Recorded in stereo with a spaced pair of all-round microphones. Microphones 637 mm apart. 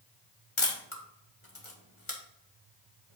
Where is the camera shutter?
50° left (ahead or behind), 1.6 m.